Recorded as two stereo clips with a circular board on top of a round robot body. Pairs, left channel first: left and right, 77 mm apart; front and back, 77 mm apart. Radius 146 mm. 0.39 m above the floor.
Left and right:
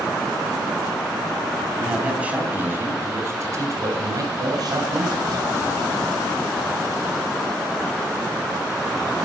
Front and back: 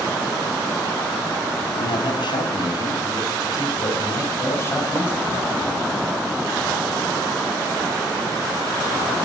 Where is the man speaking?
10° right, 3.5 m; by 5.5 s 65° right, 4 m.